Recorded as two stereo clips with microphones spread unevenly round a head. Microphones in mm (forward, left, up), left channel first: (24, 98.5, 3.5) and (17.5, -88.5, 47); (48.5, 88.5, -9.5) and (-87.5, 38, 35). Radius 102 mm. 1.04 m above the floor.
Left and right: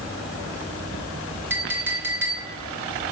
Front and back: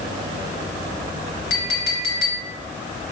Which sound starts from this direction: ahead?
A clink, at 1.5 s.